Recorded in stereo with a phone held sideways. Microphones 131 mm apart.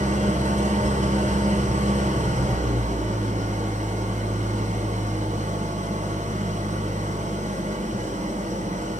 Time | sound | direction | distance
0.0 | an engine running | 70° right (ahead or behind) | 4.5 m